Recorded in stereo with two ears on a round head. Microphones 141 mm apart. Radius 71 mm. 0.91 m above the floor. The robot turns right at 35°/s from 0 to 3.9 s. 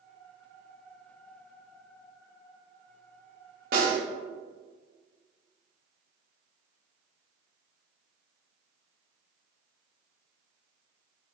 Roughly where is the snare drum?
Right.